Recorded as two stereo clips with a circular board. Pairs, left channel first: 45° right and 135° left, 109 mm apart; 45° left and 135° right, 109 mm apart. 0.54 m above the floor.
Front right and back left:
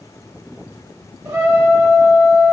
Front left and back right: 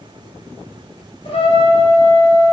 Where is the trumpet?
75° left, 1.0 m.